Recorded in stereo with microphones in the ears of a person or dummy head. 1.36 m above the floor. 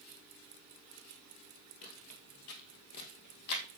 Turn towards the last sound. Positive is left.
turn(degrees=65)  # may be behind; listen again after turning